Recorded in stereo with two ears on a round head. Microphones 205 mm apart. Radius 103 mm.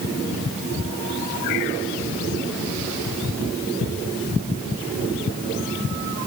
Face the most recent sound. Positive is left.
No sound to turn to.